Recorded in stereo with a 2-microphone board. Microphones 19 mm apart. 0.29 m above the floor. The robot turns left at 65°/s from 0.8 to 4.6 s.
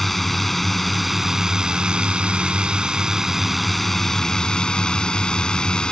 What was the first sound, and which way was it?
A drone, 10° left.